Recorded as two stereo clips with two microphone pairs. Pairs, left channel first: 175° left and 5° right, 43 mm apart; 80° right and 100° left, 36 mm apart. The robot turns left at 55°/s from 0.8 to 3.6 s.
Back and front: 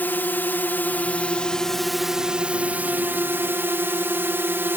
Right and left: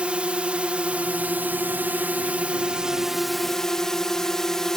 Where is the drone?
145° left; by 4.8 s 5° right.